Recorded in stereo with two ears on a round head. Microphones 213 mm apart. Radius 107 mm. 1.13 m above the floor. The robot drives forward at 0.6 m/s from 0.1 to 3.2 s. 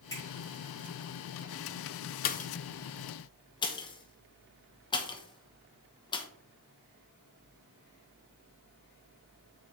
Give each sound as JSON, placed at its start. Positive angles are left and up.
{"t": 0.1, "sound": "a finger snap", "side_deg": 15, "distance_m": 4.0}
{"t": 2.2, "sound": "a pop", "side_deg": 35, "distance_m": 0.5}